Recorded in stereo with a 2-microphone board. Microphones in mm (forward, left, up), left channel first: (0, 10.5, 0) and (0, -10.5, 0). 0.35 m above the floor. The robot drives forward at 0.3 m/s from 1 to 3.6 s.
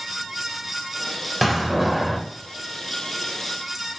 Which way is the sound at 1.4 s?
5° right (ahead or behind).